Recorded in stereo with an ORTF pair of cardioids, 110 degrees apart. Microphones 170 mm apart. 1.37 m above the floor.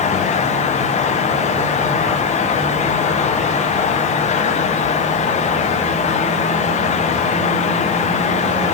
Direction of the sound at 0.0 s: 40° left.